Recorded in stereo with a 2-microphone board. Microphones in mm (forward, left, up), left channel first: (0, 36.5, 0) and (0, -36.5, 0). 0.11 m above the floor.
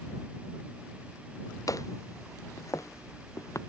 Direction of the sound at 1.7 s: 50° left (ahead or behind).